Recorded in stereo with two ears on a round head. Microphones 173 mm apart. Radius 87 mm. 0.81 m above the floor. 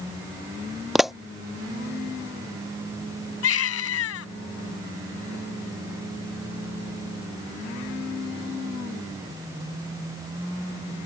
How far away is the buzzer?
I don't hear a buzzer.